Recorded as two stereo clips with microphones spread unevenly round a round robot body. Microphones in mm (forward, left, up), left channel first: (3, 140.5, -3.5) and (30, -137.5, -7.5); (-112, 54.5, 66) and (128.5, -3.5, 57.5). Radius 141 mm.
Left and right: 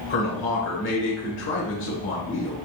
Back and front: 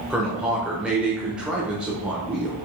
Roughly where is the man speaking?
Left.